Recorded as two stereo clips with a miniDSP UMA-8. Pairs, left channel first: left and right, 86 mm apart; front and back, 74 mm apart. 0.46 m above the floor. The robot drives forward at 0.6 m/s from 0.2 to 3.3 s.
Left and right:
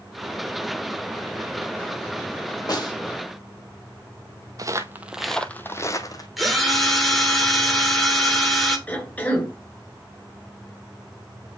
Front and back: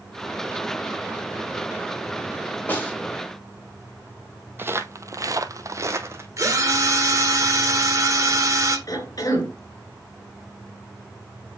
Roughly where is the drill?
Behind.